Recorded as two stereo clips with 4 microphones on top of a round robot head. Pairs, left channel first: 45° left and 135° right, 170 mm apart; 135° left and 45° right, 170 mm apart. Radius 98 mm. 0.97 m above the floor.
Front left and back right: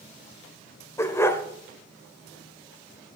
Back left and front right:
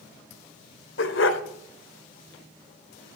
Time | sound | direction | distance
1.0 | a dog barking | 120° left | 1.3 m